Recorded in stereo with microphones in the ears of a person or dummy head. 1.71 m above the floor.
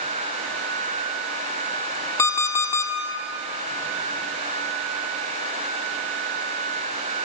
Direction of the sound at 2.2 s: 20° left (ahead or behind).